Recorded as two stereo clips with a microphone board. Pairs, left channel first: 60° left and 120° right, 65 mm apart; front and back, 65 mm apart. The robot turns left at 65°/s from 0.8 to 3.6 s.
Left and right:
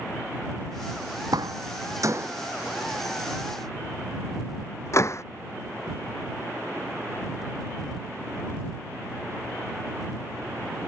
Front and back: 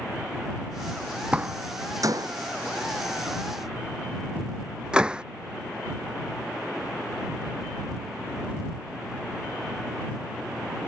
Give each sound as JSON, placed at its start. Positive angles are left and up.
{"t": 1.3, "sound": "a door slam", "azimuth_deg": -110}